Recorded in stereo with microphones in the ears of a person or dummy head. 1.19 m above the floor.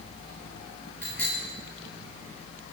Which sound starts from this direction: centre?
A bicycle bell, at 1.0 s.